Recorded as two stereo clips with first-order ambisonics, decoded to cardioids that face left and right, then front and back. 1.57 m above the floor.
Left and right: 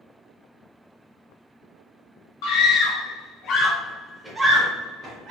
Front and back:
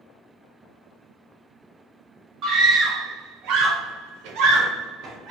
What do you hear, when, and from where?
2.4 s a scream: 120° left, 1.2 m; by 5.3 s 135° right, 0.9 m